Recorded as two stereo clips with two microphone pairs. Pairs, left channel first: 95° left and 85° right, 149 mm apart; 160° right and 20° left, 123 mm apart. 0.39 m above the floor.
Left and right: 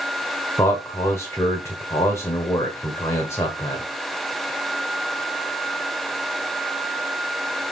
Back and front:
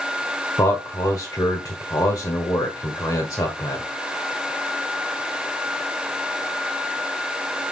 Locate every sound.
0.6 s a man speaking: 155° left, 1.3 m